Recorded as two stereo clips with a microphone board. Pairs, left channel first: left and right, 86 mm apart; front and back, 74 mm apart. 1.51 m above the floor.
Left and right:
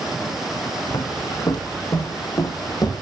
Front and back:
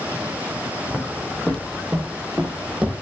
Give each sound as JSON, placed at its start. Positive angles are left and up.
{"t": 0.9, "sound": "footsteps", "azimuth_deg": 65, "distance_m": 2.5}